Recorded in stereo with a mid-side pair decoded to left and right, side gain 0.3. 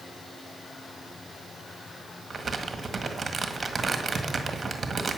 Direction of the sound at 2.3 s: 50° right.